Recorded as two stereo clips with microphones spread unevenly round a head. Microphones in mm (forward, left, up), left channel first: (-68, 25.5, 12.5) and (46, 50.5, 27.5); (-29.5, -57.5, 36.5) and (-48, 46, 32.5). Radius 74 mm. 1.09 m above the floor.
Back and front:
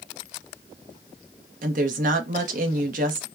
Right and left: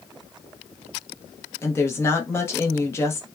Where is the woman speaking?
10° right, 0.8 m.